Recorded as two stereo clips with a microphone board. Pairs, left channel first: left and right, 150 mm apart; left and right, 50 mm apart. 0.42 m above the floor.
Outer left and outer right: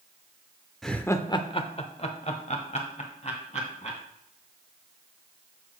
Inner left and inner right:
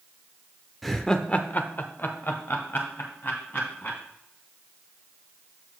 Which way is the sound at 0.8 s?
Centre (ahead or behind).